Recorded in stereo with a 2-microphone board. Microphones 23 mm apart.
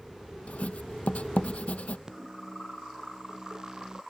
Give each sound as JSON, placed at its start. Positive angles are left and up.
{"t": 0.5, "sound": "writing", "side_deg": 60}
{"t": 2.1, "sound": "a microwave", "side_deg": -25}